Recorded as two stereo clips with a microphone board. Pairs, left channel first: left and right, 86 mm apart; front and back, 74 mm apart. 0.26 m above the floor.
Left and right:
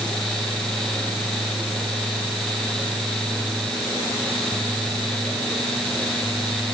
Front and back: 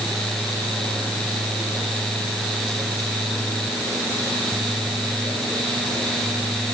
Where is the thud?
I don't hear a thud.